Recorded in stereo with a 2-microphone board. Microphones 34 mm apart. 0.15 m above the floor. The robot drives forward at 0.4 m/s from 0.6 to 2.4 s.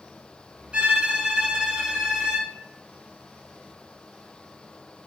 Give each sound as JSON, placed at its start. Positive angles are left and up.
{"t": 0.7, "sound": "a violin", "side_deg": -30, "distance_m": 0.7}